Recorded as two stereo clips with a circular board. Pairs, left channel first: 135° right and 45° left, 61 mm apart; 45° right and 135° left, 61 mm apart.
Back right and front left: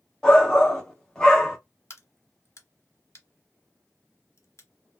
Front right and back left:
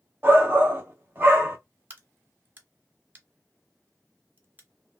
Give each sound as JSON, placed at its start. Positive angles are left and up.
{"t": 0.2, "sound": "a shout", "azimuth_deg": 155, "distance_m": 1.2}
{"t": 1.9, "sound": "a crack", "azimuth_deg": -170, "distance_m": 0.9}